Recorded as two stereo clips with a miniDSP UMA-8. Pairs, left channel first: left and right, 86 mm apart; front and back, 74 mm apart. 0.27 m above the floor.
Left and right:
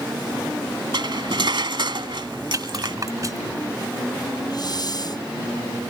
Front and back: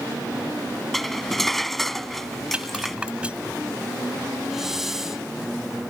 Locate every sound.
0.9 s cutlery clinking: 85° right
2.5 s a rattle: 110° right
4.5 s a hiss: 95° left